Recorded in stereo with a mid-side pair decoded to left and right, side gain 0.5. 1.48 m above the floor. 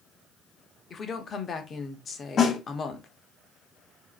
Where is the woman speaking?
35° left, 0.7 m.